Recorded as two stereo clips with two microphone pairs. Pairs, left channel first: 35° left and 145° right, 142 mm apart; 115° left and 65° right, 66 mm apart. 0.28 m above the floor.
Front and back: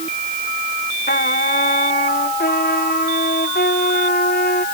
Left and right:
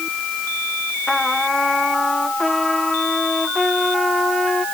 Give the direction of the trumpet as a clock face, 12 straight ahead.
11 o'clock.